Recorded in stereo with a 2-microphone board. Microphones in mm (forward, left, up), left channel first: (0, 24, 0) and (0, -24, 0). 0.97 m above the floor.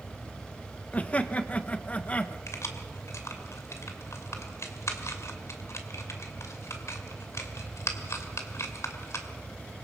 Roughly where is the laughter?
Left.